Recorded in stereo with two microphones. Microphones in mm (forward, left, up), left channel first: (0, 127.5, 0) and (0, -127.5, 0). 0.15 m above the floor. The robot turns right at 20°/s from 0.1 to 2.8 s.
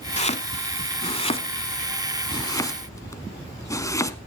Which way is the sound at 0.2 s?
25° left (ahead or behind).